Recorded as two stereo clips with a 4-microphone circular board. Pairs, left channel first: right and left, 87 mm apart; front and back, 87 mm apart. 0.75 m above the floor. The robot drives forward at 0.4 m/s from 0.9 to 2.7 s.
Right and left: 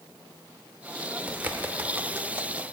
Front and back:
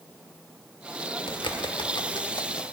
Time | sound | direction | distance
1.3 | a bird | 20° left | 1.0 m